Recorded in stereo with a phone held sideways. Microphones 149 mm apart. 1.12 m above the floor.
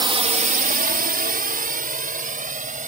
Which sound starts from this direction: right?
A drone, at 0.0 s.